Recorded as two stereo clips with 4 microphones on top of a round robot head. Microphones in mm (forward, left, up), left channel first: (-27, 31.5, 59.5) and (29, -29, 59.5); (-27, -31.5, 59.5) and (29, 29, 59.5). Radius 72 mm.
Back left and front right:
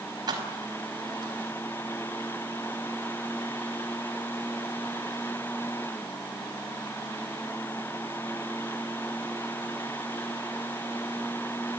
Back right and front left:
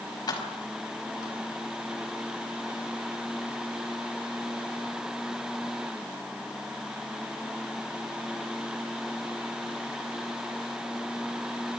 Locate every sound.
0.3 s keys jangling: 90° right, 5 m